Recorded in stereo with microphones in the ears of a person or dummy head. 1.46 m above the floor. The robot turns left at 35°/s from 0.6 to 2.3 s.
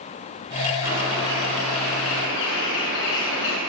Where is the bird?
125° left, 7.5 m; by 3.6 s 70° left, 7.5 m.